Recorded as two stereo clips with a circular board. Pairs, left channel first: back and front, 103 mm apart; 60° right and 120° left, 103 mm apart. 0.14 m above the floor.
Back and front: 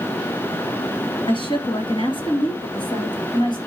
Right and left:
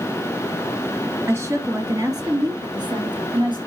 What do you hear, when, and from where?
1.3 s a woman speaking: straight behind, 2.5 m; by 3.6 s 150° left, 3 m